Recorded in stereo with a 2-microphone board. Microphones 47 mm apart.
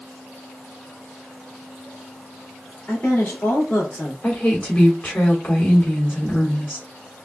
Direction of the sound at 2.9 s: 35° left (ahead or behind).